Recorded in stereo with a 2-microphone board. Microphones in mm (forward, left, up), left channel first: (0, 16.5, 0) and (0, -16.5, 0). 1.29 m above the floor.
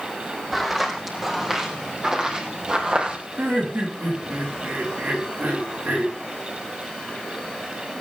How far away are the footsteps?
About 4 m.